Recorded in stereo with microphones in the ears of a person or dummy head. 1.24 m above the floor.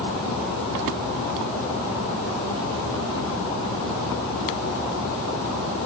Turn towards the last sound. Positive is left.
No sound to turn to.